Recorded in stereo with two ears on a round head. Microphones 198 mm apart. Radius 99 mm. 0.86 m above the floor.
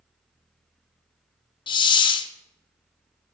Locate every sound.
1.7 s a hiss: 20° left (ahead or behind), 0.6 m